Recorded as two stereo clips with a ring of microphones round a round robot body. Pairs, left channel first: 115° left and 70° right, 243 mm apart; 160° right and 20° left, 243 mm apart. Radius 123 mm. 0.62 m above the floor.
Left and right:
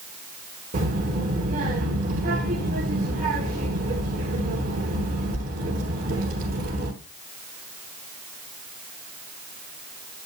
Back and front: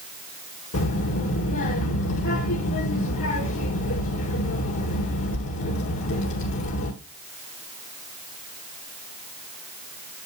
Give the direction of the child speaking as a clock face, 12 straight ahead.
4 o'clock.